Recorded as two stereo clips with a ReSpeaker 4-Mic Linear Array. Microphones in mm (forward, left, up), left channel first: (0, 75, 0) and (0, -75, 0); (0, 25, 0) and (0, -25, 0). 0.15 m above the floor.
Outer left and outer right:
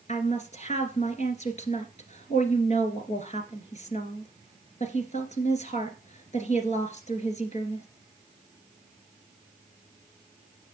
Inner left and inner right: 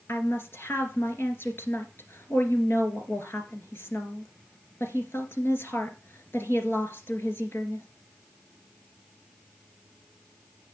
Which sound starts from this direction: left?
A woman speaking, at 0.1 s.